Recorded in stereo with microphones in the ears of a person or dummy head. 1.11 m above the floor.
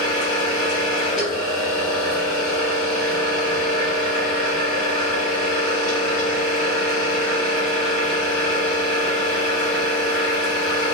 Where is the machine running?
5° left (ahead or behind), 1.0 m.